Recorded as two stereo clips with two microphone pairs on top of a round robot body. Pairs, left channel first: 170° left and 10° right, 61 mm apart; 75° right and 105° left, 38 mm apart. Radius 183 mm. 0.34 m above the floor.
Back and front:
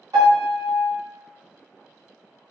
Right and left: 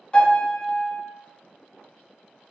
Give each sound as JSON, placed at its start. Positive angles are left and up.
{"t": 0.1, "sound": "a piano", "azimuth_deg": -10, "distance_m": 1.8}